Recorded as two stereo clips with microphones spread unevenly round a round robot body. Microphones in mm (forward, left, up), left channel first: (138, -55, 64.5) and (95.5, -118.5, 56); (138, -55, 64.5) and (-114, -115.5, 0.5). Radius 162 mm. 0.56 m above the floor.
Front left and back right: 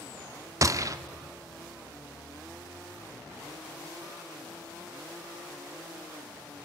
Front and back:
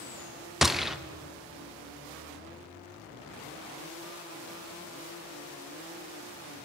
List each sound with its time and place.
0.6 s a gunshot: 85° right, 0.8 m